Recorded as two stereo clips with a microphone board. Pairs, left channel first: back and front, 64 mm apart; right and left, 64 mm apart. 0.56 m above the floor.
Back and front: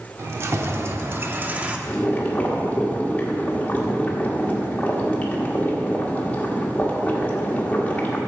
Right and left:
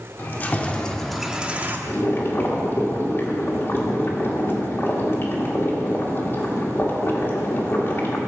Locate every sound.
0.2 s keys jangling: 40° right, 1.1 m; by 1.8 s 60° left, 0.7 m
1.9 s boiling: 120° right, 1.5 m